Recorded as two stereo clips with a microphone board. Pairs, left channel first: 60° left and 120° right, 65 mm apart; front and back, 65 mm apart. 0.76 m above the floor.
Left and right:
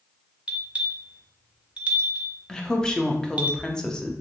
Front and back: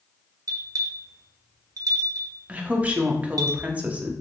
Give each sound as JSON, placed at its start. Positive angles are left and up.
{"t": 0.5, "sound": "a bell", "azimuth_deg": 170, "distance_m": 0.6}
{"t": 2.5, "sound": "a woman speaking", "azimuth_deg": 130, "distance_m": 0.5}